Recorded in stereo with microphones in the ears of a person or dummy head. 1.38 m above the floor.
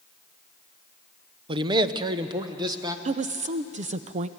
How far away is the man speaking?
About 0.6 m.